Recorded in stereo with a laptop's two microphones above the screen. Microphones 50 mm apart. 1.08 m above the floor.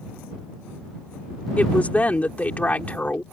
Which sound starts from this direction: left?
A woman speaking, at 1.6 s.